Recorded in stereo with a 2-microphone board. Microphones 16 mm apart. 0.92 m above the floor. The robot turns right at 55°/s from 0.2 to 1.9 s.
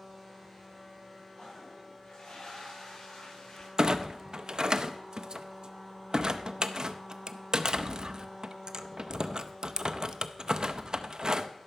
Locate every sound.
1.4 s a toilet flushing: 50° left (ahead or behind), 5.5 m; by 3.7 s 80° left, 5.5 m
3.8 s a clunk: 60° right (ahead or behind), 0.5 m